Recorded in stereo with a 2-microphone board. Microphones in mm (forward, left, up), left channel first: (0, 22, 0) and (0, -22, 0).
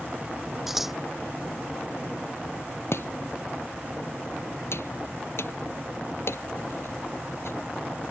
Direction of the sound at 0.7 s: 5° right (ahead or behind).